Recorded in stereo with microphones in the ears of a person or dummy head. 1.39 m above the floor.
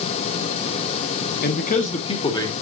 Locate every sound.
1.4 s a man speaking: 50° left (ahead or behind), 1.4 m; by 2.5 s 20° left (ahead or behind), 1.7 m